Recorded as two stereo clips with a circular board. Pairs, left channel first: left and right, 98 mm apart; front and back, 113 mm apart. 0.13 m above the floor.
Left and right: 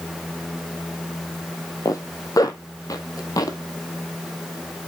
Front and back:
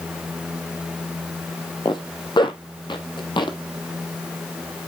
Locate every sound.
1.9 s a zipper: 40° left, 1.1 m